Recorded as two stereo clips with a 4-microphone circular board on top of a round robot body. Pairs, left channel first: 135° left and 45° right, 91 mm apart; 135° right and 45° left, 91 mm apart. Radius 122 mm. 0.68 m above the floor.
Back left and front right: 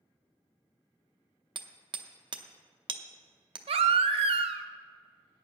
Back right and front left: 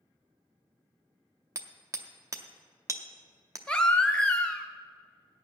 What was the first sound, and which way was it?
Hammering, 10° right.